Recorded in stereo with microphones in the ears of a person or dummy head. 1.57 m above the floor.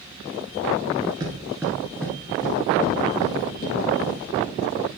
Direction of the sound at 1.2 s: 15° right (ahead or behind).